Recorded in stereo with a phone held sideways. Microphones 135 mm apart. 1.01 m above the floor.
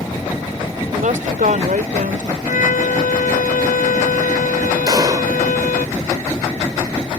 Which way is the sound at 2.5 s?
80° left.